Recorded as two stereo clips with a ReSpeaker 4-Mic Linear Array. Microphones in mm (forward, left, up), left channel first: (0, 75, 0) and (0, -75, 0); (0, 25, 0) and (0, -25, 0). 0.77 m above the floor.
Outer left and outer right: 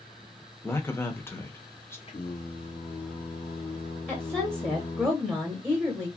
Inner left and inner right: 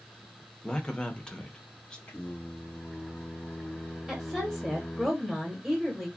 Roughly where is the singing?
Left.